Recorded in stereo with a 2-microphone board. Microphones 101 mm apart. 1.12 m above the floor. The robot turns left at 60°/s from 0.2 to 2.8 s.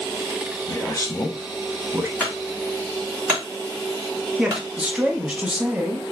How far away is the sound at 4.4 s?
About 0.7 m.